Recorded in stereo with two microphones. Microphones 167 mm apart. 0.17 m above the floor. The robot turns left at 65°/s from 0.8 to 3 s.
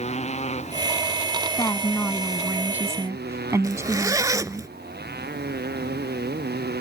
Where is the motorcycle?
40° left; by 6.8 s 100° right.